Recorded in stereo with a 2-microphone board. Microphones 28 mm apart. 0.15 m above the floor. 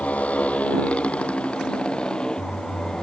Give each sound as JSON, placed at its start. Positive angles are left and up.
{"t": 0.0, "sound": "a motorcycle", "side_deg": 65}